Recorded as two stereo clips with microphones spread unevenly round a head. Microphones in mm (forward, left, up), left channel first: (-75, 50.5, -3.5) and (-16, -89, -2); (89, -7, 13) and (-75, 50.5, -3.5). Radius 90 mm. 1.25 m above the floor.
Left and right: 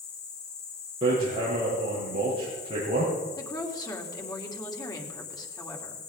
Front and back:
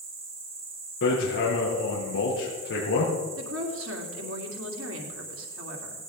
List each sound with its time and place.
0.0 s an insect: 105° left, 3.5 m
1.0 s hammering: 5° right, 6.5 m
3.4 s a woman speaking: straight behind, 3 m